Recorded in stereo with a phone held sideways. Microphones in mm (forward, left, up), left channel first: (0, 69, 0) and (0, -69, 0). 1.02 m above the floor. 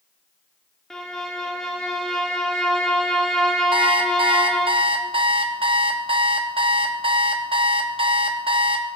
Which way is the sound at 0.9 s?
5° left (ahead or behind).